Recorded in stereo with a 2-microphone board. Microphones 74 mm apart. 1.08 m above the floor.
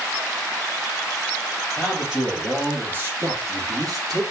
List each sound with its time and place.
1.8 s a man speaking: 5° right (ahead or behind), 2 m; by 4.2 s 65° right (ahead or behind), 1.9 m